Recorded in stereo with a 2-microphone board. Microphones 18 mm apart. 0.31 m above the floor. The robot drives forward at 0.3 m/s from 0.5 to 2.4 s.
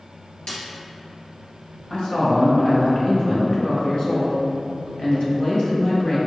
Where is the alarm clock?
I don't hear an alarm clock.